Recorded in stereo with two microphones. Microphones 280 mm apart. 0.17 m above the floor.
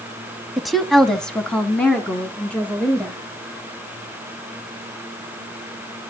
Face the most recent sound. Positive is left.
turn(degrees=5)  # may be behind; listen again after turning